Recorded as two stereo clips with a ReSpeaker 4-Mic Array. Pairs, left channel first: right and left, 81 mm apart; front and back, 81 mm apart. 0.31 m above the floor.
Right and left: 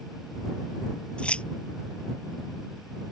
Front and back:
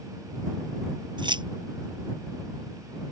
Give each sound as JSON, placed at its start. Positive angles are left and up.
{"t": 1.2, "sound": "keys jangling", "azimuth_deg": -165}